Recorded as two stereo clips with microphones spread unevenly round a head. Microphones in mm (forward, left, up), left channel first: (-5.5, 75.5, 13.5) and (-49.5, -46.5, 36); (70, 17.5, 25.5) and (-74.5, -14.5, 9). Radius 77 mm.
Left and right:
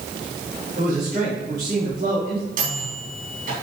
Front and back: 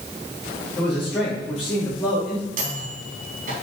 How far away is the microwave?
About 3.5 m.